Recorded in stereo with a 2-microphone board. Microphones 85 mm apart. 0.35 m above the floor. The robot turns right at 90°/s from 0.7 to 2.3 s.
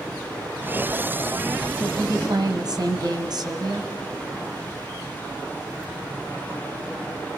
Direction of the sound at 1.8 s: 125° right.